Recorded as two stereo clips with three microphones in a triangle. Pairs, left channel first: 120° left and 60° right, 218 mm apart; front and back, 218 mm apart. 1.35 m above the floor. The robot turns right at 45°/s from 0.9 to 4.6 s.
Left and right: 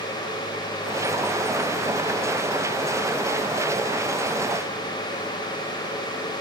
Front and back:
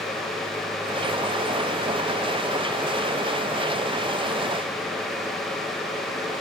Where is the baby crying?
No baby crying in this recording.